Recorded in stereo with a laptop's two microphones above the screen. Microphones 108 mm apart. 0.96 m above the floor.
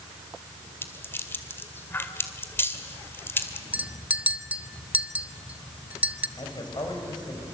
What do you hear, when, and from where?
0.8 s a rattle: 20° left (ahead or behind), 2 m
3.7 s a clink: 15° right (ahead or behind), 0.8 m
6.4 s a man speaking: 40° left (ahead or behind), 5 m